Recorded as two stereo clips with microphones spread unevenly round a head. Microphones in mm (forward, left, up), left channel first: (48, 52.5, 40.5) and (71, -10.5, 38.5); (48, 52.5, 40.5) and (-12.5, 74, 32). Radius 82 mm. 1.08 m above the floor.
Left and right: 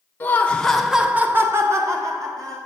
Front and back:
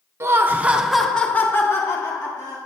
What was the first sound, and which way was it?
Laughter, 165° left.